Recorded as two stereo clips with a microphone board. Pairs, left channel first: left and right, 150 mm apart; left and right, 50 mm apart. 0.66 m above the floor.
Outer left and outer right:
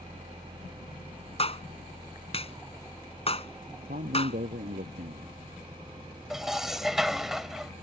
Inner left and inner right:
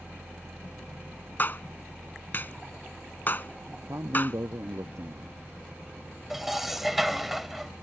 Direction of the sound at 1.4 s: 40° left (ahead or behind).